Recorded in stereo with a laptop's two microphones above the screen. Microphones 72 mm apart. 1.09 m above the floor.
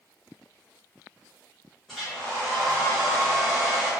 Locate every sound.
1.9 s a hair dryer: 5° left (ahead or behind), 1.0 m